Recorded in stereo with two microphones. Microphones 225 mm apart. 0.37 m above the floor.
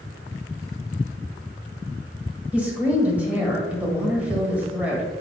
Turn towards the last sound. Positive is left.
turn(degrees=-5)  # may be behind; listen again after turning